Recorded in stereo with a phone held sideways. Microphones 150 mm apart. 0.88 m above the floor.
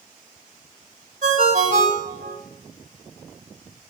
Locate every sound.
1.2 s a ringtone: 60° right (ahead or behind), 1.8 m